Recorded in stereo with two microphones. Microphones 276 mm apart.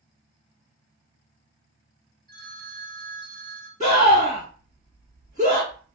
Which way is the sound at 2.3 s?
30° right (ahead or behind).